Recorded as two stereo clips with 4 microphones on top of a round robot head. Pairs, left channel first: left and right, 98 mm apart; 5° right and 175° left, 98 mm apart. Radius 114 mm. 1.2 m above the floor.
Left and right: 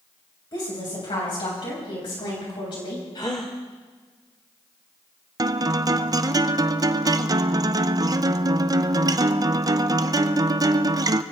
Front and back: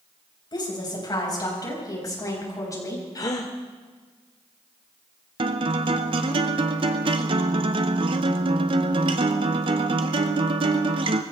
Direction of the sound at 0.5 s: 35° left.